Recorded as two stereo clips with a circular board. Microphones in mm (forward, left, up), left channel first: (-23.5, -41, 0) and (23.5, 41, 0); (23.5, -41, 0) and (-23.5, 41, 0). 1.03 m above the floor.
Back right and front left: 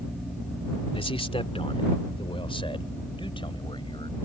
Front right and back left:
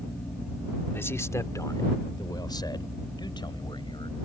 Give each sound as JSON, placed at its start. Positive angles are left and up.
{"t": 0.9, "sound": "a man speaking", "azimuth_deg": -125}